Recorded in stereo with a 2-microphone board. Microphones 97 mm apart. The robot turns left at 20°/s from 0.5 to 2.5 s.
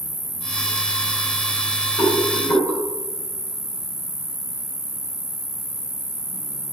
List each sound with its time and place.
0.0 s an insect: 15° left, 1.2 m; by 6.7 s 25° right, 1.2 m
2.0 s a rattle: 35° left (ahead or behind), 3.5 m; by 2.8 s 25° left (ahead or behind), 3.5 m